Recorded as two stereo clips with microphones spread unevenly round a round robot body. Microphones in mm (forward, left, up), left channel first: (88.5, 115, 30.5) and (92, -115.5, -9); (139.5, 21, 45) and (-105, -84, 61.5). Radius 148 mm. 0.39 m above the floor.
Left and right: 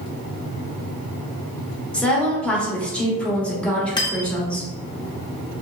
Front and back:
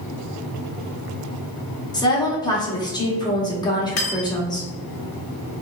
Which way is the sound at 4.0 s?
15° left.